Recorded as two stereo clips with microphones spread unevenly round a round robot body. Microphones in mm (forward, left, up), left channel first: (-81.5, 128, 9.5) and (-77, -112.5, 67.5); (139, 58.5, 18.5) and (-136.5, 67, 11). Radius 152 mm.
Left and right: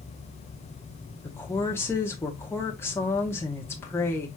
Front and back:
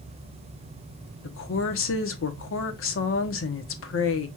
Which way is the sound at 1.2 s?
25° left.